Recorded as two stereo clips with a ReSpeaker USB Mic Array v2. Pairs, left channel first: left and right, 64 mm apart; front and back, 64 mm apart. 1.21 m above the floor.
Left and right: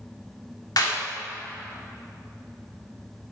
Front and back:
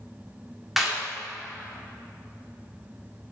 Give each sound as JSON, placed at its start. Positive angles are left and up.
{"t": 0.8, "sound": "a clap", "azimuth_deg": 95, "distance_m": 2.0}